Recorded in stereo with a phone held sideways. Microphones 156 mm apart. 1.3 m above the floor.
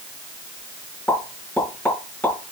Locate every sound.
1.1 s a pop: 10° left (ahead or behind), 3.5 m